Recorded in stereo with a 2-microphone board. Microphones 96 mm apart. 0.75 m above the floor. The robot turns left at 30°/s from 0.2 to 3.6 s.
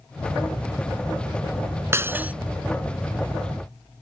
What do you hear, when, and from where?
1.9 s breaking glass: 25° right (ahead or behind); by 2.3 s 15° right (ahead or behind)